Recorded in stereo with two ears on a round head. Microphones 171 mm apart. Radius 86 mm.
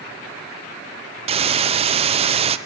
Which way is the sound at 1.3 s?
30° right (ahead or behind).